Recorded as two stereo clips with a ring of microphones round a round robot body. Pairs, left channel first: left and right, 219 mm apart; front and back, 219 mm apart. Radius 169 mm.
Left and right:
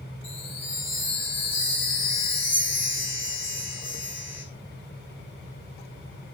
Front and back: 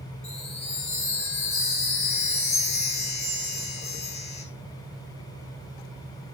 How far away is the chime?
About 4.5 m.